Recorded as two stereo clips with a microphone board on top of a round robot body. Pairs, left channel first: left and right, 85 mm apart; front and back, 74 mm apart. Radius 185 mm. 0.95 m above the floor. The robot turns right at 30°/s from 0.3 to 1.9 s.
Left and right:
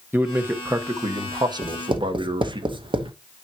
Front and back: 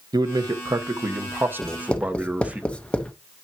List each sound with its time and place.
0.1 s a man speaking: 155° right, 1.4 m; by 2.6 s 110° right, 1.4 m
1.6 s writing: 85° right, 1.1 m; by 3.1 s 75° right, 1.1 m